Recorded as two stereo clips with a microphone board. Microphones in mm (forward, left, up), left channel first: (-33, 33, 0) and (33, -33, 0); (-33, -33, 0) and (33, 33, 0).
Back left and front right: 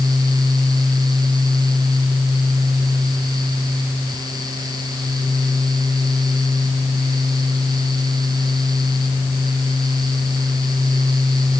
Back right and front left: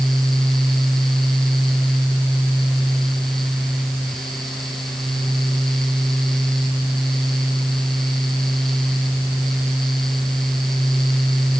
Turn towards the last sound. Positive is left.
No sound to turn to.